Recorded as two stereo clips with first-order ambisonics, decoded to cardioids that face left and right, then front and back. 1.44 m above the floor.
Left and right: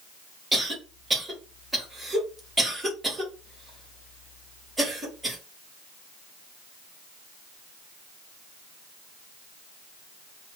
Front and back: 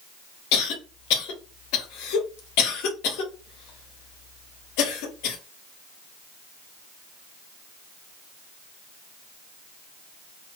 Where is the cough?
10° right, 1.7 m.